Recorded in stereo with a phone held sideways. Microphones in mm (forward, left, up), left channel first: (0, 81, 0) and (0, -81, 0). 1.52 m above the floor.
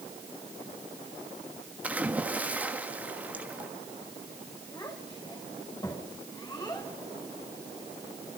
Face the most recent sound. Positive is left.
turn(degrees=25)  # may be behind; listen again after turning